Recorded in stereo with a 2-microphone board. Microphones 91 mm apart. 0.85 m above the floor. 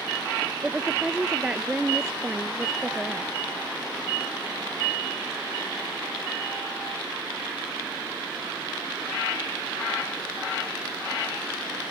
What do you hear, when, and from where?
0.6 s a woman speaking: 10° right (ahead or behind); by 3.4 s 5° right (ahead or behind)